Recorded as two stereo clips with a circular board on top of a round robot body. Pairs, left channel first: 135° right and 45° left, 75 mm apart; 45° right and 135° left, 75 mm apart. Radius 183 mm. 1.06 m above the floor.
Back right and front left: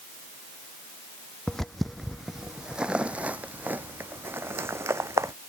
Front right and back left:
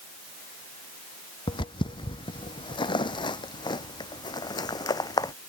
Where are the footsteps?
50° right; by 5.3 s 10° right.